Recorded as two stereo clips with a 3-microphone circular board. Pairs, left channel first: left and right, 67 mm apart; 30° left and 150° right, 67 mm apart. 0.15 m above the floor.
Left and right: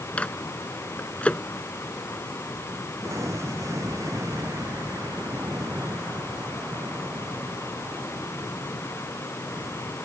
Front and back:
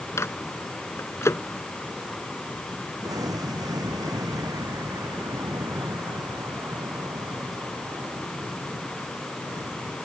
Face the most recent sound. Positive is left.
turn(degrees=-130)